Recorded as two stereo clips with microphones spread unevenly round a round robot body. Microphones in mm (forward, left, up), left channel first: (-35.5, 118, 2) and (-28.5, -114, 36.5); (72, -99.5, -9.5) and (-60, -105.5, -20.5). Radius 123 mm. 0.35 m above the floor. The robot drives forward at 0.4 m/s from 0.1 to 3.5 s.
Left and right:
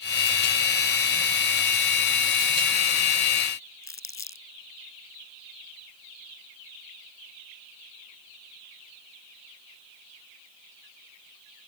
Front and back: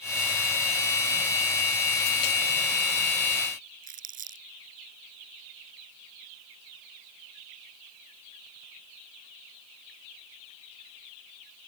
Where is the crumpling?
170° left.